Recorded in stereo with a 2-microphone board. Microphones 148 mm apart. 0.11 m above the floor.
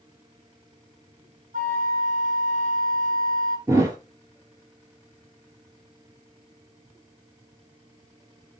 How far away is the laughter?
No laughter in this recording.